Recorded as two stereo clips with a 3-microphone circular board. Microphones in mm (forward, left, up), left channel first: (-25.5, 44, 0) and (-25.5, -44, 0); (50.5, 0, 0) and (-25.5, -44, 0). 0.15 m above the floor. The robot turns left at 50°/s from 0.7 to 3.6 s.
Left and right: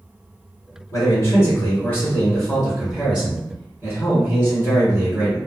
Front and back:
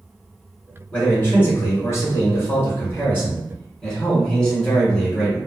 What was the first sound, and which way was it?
A man speaking, 90° left.